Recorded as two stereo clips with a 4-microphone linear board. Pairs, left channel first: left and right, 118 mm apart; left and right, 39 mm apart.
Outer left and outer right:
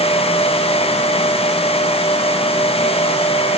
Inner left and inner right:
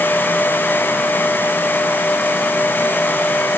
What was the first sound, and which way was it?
Only background noise.